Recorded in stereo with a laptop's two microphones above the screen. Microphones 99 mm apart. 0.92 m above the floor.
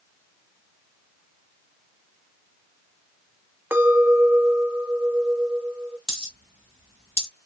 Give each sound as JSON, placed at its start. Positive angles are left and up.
{"t": 3.7, "sound": "a clink", "side_deg": -20, "distance_m": 0.7}
{"t": 6.1, "sound": "a dropped coin", "side_deg": -65, "distance_m": 1.3}